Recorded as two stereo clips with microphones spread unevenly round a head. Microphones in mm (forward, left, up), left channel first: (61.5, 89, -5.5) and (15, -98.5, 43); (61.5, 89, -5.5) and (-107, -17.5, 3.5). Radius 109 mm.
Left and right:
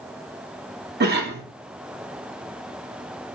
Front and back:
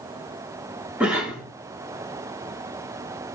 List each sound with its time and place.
1.0 s a cough: 65° right, 1.9 m